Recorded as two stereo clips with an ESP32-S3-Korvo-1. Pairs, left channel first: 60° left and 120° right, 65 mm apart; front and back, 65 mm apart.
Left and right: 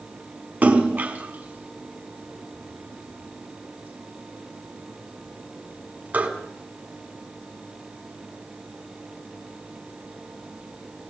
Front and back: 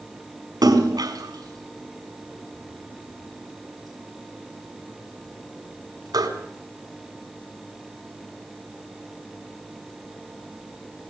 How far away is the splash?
About 4.5 m.